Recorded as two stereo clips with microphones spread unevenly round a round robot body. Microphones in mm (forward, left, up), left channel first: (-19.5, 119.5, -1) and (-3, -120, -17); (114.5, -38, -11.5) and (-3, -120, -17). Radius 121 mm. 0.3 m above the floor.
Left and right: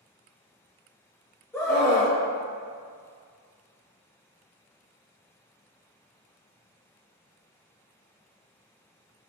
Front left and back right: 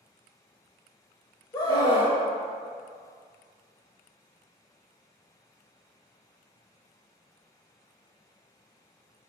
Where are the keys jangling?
No keys jangling in this recording.